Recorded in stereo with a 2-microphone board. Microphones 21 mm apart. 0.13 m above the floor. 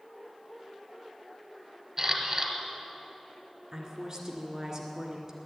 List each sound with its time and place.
2.0 s a camera shutter: 30° right (ahead or behind), 1.6 m
3.7 s a woman speaking: 35° right (ahead or behind), 1.9 m